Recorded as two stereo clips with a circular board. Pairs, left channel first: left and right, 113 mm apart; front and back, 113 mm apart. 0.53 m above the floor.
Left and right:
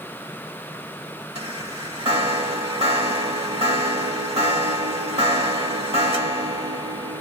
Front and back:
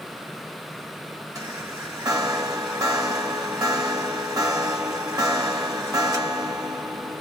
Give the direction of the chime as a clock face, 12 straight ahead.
4 o'clock.